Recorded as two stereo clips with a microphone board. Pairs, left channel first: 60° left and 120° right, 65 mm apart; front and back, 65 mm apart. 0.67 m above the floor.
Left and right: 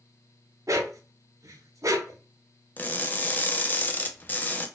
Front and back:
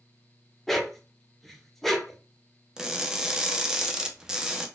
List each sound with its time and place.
0.7 s a dog barking: 90° right, 0.6 m
2.8 s crushing: 105° left, 0.5 m